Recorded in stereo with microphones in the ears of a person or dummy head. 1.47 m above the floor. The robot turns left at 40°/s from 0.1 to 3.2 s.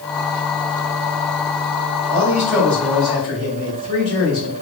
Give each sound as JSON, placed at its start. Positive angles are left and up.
{"t": 2.1, "sound": "a man speaking", "azimuth_deg": -160, "distance_m": 1.8}